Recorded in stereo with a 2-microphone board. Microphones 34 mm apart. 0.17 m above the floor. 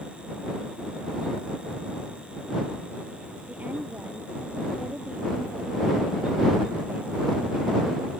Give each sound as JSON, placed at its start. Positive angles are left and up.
{"t": 3.5, "sound": "a woman speaking", "side_deg": -45}